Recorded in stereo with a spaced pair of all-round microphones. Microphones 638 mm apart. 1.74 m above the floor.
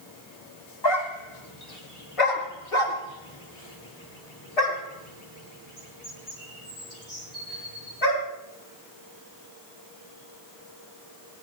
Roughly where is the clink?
No clink in this recording.